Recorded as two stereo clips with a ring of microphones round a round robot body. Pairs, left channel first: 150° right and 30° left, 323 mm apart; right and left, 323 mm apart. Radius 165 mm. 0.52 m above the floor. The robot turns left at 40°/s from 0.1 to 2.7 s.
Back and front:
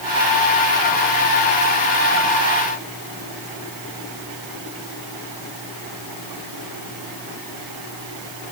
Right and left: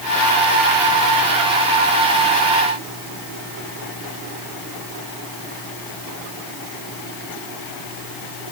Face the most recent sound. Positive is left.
No sound to turn to.